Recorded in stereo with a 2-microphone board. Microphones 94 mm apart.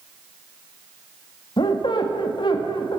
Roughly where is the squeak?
Left.